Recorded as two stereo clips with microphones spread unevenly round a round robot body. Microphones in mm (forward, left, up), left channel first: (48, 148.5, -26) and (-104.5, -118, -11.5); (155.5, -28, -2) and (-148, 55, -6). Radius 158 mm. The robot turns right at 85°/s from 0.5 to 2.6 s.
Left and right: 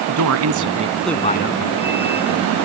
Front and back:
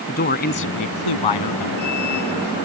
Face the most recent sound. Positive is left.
turn(degrees=100)